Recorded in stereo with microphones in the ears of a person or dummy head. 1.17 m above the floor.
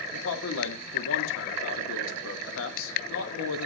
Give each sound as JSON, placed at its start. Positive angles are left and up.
{"t": 0.1, "sound": "a man speaking", "side_deg": 85, "distance_m": 2.0}